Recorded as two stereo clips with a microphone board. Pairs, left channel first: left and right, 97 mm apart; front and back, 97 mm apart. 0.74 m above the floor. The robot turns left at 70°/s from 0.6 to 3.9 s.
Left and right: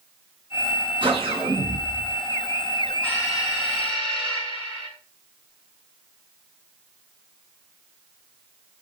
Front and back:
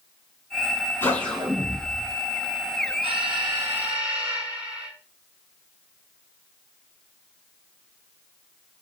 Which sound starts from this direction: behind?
An alarm, at 3.0 s.